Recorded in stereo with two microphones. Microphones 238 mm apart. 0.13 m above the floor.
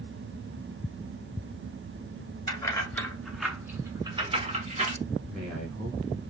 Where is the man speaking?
5° left (ahead or behind), 1.5 m.